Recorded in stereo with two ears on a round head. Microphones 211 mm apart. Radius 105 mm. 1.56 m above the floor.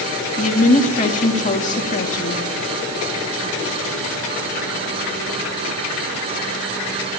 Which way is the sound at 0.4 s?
35° left (ahead or behind).